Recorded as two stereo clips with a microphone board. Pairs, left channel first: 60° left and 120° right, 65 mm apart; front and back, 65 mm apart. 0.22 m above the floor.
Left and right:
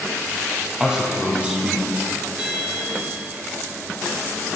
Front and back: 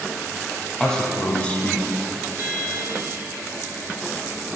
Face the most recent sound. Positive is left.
turn(degrees=175)